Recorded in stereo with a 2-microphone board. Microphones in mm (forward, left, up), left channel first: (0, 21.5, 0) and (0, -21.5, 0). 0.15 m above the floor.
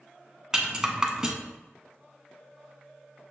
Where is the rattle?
15° right (ahead or behind), 0.7 m.